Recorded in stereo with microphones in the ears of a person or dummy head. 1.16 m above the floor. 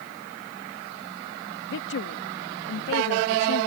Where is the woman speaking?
60° left (ahead or behind).